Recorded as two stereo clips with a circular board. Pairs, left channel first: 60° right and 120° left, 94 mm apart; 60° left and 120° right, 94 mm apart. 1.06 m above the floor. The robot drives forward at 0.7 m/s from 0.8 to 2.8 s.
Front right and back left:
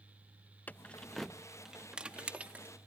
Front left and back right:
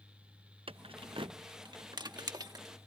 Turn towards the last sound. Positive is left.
turn(degrees=-165)